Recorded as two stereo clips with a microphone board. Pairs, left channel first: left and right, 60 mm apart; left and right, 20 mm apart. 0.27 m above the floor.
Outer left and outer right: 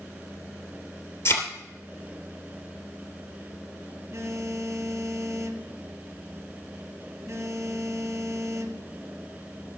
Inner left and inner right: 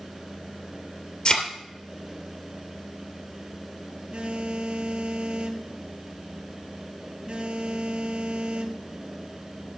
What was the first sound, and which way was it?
A thud, 50° left (ahead or behind).